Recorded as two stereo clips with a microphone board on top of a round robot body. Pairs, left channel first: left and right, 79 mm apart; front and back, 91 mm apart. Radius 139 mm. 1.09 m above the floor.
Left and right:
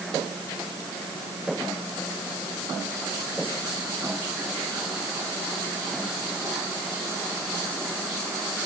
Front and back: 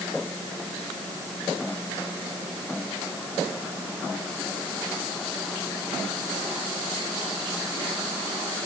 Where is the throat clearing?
No throat clearing in this recording.